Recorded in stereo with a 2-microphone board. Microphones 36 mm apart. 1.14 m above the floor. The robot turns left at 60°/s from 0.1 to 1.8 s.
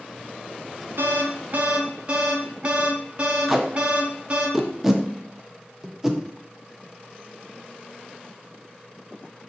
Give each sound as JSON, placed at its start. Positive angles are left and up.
{"t": 1.0, "sound": "an alarm", "azimuth_deg": -95, "distance_m": 0.6}
{"t": 3.5, "sound": "tape being pulled", "side_deg": -10, "distance_m": 0.6}